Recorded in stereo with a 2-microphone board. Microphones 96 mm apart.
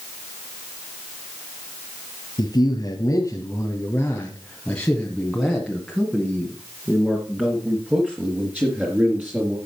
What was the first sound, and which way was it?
A man speaking, 45° left (ahead or behind).